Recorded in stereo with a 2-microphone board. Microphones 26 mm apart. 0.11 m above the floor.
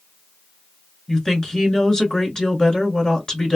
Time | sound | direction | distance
1.1 | a woman speaking | 25° left (ahead or behind) | 1.3 m